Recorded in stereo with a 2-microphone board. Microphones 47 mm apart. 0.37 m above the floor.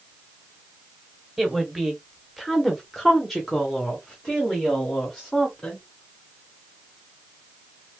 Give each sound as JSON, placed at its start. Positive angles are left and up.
{"t": 1.4, "sound": "a woman speaking", "side_deg": -5, "distance_m": 1.3}